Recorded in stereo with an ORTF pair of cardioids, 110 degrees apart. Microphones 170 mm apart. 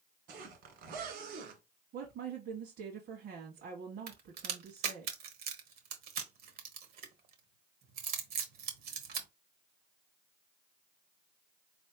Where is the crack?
65° right, 1.3 m.